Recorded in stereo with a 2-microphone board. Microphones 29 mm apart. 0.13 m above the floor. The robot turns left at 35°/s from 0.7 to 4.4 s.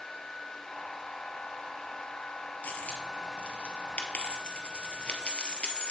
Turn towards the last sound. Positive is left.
turn(degrees=40)  # may be behind; listen again after turning